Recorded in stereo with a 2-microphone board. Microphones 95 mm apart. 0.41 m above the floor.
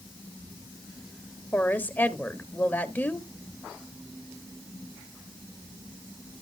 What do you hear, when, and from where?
1.5 s a woman speaking: 20° left (ahead or behind), 1.4 m